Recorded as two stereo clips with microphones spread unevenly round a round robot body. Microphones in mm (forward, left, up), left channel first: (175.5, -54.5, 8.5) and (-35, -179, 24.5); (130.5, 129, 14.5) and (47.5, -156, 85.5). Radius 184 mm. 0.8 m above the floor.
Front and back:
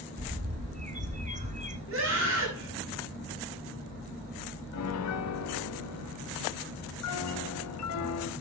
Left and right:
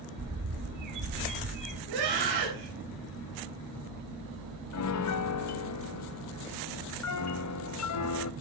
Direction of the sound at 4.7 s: 50° left.